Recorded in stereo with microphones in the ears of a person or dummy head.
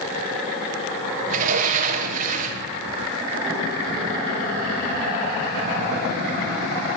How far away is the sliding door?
About 1.3 m.